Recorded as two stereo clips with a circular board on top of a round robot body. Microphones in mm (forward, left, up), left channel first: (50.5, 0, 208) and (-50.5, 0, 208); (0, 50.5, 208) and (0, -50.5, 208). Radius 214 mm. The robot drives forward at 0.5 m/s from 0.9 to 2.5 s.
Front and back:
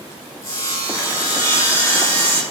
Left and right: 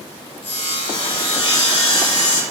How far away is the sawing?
About 6 m.